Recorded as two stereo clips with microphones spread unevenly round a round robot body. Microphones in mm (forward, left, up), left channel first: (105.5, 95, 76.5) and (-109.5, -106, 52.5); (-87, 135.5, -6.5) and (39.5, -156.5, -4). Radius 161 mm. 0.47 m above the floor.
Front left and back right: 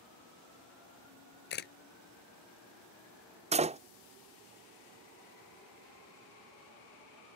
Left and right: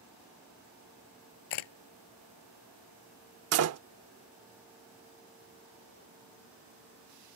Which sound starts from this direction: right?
A door slam, at 3.5 s.